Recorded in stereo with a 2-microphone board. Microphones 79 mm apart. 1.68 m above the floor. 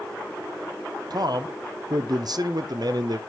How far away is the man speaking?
About 0.5 m.